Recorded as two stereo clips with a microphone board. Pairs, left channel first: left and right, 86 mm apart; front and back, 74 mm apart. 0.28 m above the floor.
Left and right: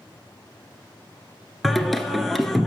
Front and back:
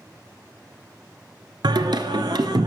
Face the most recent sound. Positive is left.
turn(degrees=180)